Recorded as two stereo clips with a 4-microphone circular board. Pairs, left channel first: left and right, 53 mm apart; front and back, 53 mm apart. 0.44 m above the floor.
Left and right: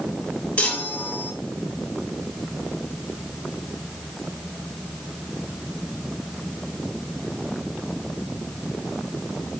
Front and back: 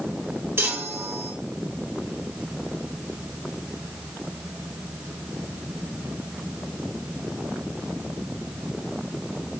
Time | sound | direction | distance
0.6 | a chime | 145° left | 0.8 m